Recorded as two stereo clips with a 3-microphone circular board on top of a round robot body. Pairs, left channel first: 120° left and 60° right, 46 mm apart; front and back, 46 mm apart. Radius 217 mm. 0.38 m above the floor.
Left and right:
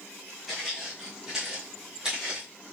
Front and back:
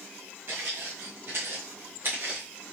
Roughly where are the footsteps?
Behind right.